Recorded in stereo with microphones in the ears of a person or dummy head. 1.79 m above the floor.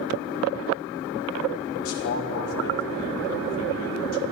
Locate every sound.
1.8 s a man speaking: 80° left, 3 m